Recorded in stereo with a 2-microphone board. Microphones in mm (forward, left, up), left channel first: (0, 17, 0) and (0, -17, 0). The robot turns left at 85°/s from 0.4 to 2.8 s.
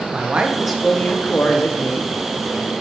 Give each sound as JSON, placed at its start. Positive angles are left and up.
{"t": 0.1, "sound": "a man speaking", "azimuth_deg": -145, "distance_m": 0.8}